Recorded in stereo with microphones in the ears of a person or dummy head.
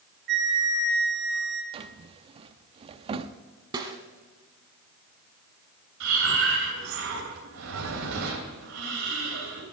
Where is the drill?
No drill in this recording.